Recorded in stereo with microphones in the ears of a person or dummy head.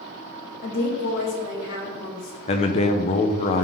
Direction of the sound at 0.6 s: 60° left (ahead or behind).